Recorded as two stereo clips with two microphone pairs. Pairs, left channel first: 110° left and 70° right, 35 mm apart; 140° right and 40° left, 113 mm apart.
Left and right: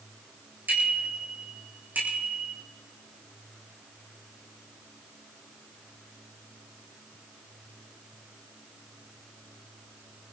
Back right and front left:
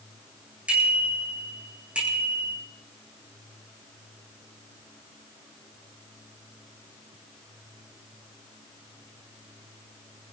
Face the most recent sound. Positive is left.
turn(degrees=-40)